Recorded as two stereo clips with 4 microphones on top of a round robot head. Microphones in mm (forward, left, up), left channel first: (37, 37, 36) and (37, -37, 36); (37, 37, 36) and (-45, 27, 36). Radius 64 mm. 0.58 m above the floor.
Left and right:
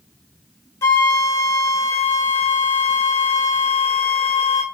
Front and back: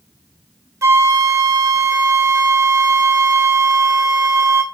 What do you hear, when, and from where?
0.8 s a flute: 140° left, 1.7 m